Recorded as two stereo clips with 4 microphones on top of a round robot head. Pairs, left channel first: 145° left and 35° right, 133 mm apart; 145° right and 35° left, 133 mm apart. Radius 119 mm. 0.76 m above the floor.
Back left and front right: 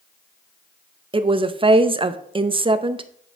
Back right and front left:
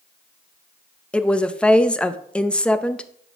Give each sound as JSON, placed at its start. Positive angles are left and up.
{"t": 1.1, "sound": "a woman speaking", "azimuth_deg": -65, "distance_m": 0.7}